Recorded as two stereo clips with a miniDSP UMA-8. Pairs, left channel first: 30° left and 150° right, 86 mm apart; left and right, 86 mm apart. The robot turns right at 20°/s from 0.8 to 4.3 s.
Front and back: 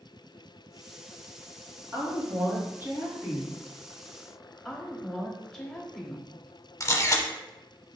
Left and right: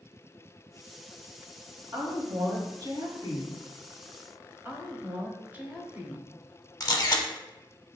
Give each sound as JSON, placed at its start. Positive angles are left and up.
{"t": 1.9, "sound": "a woman speaking", "azimuth_deg": -110, "distance_m": 1.8}
{"t": 4.7, "sound": "a woman speaking", "azimuth_deg": -55, "distance_m": 0.9}
{"t": 6.8, "sound": "a camera shutter", "azimuth_deg": 70, "distance_m": 0.7}